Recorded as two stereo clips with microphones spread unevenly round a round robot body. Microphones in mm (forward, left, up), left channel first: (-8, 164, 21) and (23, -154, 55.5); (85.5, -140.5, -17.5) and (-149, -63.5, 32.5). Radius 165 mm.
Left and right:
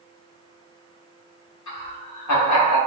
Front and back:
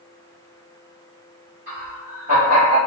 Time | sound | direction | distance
1.7 | laughter | 95° left | 1.8 m